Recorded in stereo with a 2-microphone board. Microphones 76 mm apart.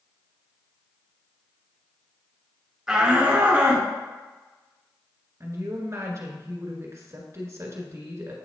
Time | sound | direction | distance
2.9 | a shout | 10° right (ahead or behind) | 1.5 m
5.4 | a woman speaking | 45° right (ahead or behind) | 1.5 m